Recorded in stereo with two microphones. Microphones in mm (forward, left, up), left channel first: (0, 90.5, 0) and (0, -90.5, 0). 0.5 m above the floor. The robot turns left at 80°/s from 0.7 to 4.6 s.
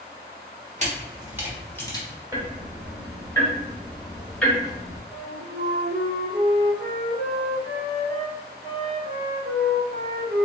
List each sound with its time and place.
0.8 s a camera shutter: 40° right (ahead or behind), 1.0 m; by 2.2 s 35° left (ahead or behind), 1.0 m
2.3 s ticking: 15° right (ahead or behind), 0.7 m; by 5.0 s 20° left (ahead or behind), 0.7 m
5.1 s a flute: 65° right (ahead or behind), 0.7 m